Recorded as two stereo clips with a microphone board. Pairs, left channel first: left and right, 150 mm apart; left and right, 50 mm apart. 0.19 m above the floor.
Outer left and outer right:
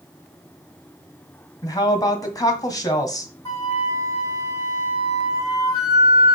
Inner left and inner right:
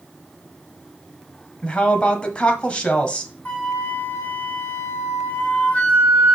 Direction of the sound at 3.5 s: 25° left (ahead or behind).